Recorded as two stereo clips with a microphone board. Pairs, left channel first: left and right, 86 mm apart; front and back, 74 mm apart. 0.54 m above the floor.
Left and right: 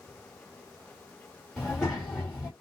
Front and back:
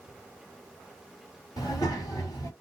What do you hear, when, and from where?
1.6 s a child speaking: 10° left, 1.6 m